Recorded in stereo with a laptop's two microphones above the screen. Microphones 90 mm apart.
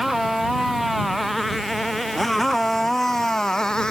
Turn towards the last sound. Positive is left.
turn(degrees=10)  # may be behind; listen again after turning